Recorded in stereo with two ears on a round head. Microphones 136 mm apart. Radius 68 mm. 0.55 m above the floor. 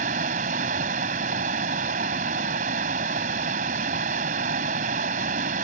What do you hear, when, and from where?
0.0 s running water: 55° right (ahead or behind)